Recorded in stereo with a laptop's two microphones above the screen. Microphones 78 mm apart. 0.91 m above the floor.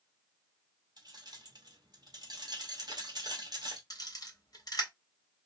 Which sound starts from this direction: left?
A camera shutter, at 3.9 s.